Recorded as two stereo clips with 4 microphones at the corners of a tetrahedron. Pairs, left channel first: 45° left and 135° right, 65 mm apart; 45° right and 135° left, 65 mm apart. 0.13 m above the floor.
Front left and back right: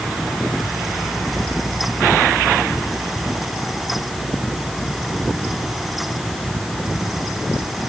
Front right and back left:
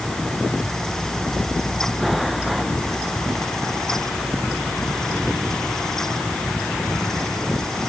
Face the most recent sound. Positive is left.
No sound to turn to.